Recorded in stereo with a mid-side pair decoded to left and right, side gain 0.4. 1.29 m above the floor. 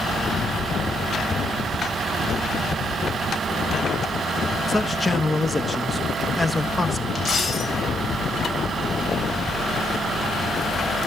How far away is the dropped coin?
About 3.5 m.